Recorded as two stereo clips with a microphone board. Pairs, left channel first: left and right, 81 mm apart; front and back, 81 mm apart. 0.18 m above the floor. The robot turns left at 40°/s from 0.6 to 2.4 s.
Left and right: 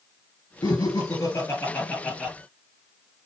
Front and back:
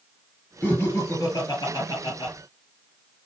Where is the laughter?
70° left, 3.5 m; by 2.3 s 5° left, 3.5 m.